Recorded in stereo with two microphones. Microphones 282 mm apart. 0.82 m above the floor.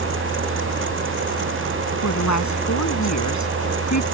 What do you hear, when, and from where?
2.0 s a woman speaking: 80° left